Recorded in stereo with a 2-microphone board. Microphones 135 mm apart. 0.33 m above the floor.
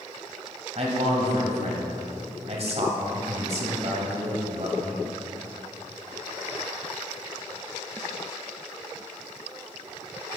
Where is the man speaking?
50° right (ahead or behind), 2 m.